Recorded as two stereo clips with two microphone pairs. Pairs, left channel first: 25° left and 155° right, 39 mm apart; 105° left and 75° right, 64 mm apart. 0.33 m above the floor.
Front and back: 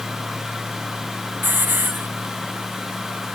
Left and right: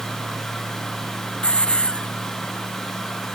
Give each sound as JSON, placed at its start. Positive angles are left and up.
{"t": 1.4, "sound": "a hiss", "azimuth_deg": 180}